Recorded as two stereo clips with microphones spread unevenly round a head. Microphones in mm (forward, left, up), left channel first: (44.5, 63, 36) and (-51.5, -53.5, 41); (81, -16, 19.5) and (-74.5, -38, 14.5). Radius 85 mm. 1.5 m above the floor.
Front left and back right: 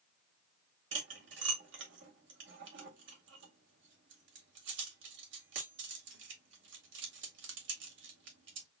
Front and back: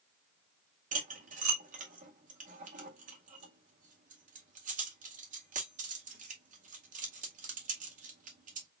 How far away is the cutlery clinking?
About 2.0 m.